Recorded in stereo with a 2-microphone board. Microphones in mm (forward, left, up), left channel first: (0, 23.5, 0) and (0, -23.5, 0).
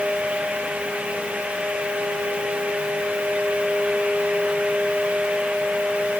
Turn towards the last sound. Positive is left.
No sound to turn to.